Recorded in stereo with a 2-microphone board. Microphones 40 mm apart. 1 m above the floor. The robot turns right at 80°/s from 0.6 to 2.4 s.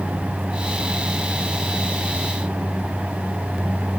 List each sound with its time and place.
Only background noise.